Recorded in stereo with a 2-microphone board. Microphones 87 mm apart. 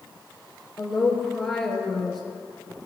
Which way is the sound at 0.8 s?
5° left (ahead or behind).